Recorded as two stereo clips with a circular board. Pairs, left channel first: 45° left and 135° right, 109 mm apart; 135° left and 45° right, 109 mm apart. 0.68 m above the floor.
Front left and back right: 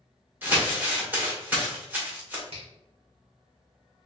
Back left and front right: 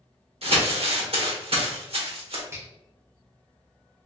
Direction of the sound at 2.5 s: 110° right.